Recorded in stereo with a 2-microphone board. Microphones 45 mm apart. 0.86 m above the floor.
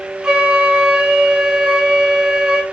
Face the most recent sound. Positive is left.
turn(degrees=-20)  # may be behind; listen again after turning